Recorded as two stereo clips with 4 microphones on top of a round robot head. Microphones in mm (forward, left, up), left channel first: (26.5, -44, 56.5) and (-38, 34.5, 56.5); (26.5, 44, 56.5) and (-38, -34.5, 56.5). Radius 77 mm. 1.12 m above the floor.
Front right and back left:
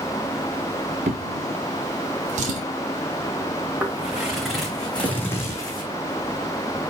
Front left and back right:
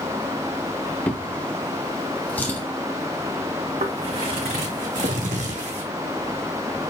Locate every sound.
1.1 s a drawer: 125° left, 1.1 m
3.8 s footsteps: 150° right, 4 m; by 5.8 s 100° right, 2.5 m